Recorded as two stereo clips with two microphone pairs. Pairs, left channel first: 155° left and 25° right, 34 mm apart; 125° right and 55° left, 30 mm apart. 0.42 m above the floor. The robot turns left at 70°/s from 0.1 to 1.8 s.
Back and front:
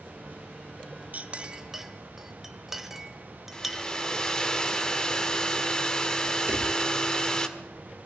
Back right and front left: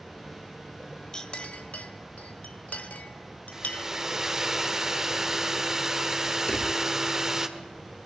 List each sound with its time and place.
1.1 s a clink: 60° right, 1.2 m; by 3.9 s 110° right, 1.2 m
3.5 s a hair dryer: 100° left, 1.5 m
6.5 s a drawer: 65° right, 3.5 m